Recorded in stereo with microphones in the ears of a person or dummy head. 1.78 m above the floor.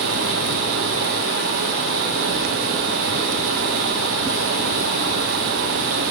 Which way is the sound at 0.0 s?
60° right (ahead or behind).